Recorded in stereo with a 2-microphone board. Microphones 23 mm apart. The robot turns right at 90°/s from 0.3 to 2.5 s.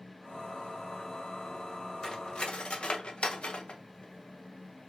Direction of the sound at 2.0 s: 20° left (ahead or behind).